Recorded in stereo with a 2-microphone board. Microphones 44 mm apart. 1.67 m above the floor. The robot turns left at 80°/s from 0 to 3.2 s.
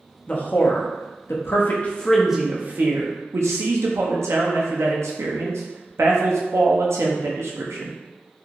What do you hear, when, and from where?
0.3 s a man speaking: 25° left (ahead or behind), 0.5 m; by 8.0 s 80° right, 0.5 m